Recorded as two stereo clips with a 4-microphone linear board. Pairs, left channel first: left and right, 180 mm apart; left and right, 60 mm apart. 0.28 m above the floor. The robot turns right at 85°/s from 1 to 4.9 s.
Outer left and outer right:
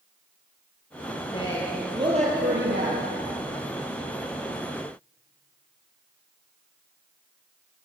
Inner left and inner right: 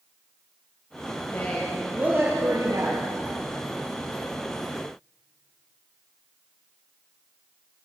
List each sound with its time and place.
1.3 s a woman speaking: 145° left, 6 m; by 3.1 s 65° right, 6 m